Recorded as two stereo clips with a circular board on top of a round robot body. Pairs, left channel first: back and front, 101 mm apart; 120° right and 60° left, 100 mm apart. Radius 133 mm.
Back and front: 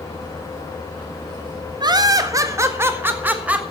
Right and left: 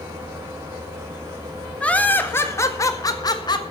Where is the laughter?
40° right, 1.8 m; by 3.6 s 75° right, 2.5 m.